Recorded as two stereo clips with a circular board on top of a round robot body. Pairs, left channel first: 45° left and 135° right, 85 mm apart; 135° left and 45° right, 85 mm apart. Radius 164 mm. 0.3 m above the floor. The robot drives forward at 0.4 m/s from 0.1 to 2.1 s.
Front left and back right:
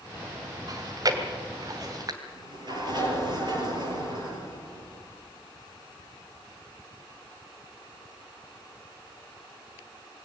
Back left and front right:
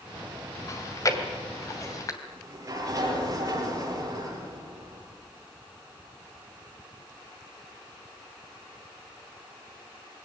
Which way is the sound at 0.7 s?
175° right.